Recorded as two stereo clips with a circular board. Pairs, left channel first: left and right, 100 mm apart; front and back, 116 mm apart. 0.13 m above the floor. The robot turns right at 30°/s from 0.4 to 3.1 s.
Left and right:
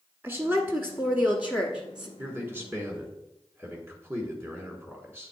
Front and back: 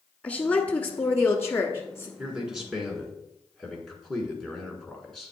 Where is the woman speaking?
65° right, 1.2 m; by 2.1 s 15° right, 1.2 m.